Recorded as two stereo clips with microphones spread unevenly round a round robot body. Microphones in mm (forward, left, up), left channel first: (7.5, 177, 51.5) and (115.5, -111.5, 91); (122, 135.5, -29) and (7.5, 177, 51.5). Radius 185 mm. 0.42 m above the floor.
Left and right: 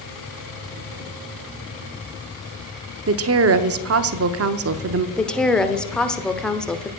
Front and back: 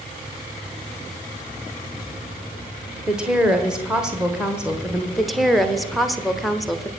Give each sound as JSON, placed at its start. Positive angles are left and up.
{"t": 3.1, "sound": "a woman speaking", "azimuth_deg": -65, "distance_m": 0.8}
{"t": 5.2, "sound": "a woman speaking", "azimuth_deg": 30, "distance_m": 1.2}